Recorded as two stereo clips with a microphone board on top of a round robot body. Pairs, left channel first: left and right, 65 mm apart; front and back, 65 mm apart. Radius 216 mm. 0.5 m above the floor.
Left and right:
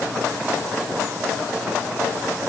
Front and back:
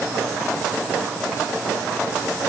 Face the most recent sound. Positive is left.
No sound to turn to.